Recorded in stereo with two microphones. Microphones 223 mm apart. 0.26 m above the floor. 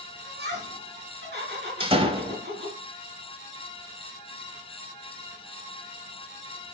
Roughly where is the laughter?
Right.